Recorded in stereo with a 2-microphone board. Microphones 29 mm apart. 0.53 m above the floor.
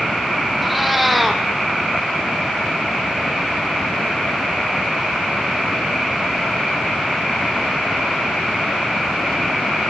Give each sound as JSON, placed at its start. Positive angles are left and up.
{"t": 0.6, "sound": "a cat meowing", "side_deg": -5, "distance_m": 2.5}